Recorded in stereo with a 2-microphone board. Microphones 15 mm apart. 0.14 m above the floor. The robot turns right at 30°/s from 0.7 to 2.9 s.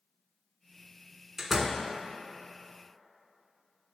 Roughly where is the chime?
I don't hear a chime.